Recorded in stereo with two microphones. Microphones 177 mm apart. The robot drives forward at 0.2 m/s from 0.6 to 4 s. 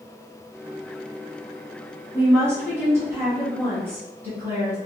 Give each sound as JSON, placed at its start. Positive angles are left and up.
{"t": 2.1, "sound": "a woman speaking", "side_deg": -15, "distance_m": 1.4}